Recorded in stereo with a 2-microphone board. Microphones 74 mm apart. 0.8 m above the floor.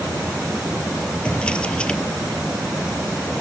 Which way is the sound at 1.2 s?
15° left (ahead or behind).